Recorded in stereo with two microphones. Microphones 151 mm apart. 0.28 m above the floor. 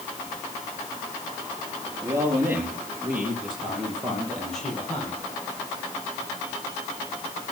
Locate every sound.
2.0 s a man speaking: 20° right (ahead or behind), 5.5 m; by 5.2 s 5° left (ahead or behind), 8.5 m